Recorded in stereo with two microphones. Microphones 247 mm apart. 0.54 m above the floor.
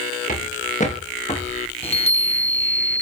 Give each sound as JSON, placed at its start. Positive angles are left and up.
{"t": 0.3, "sound": "footsteps", "side_deg": 30, "distance_m": 6.0}
{"t": 1.8, "sound": "a chime", "side_deg": 25, "distance_m": 0.9}